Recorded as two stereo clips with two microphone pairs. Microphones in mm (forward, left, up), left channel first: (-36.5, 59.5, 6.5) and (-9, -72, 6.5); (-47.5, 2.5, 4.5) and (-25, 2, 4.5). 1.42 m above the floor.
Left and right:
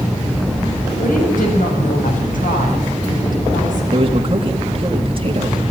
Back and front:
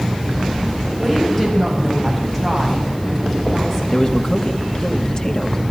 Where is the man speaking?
125° right, 2.5 m.